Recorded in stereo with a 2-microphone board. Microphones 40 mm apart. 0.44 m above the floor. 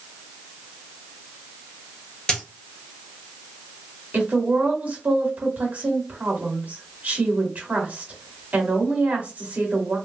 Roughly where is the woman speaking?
Right.